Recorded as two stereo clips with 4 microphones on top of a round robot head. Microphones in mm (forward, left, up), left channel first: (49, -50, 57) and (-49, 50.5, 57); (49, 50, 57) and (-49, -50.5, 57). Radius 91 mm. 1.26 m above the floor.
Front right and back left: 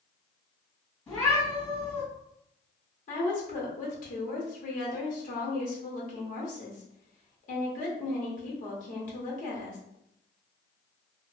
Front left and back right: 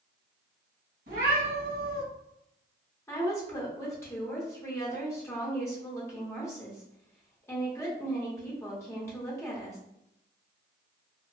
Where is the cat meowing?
125° right, 2.0 m.